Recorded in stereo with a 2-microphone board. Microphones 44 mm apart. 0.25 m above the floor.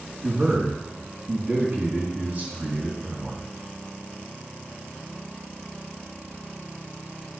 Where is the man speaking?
40° right (ahead or behind), 1.9 m.